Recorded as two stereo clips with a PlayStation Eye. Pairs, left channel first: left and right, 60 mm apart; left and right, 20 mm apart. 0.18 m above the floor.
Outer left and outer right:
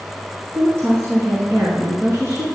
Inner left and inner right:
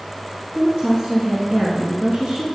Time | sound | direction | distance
0.5 | a woman speaking | 45° right (ahead or behind) | 2 m